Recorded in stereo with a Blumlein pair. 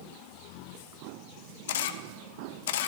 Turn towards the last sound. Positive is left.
turn(degrees=55)